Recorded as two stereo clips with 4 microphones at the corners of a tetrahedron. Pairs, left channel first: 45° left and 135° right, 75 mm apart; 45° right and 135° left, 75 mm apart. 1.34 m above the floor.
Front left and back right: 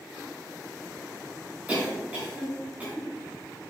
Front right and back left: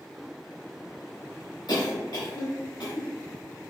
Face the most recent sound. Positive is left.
turn(degrees=-65)